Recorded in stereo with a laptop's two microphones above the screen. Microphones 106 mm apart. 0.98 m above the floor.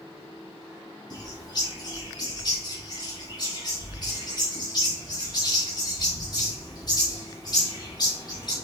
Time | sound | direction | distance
1.1 | a bird | 45° left (ahead or behind) | 4 m